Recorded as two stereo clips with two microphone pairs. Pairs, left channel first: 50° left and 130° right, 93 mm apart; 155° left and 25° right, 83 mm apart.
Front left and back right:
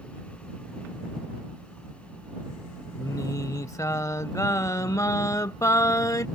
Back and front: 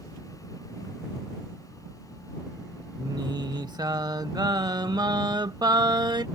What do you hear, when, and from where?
3.0 s singing: 5° right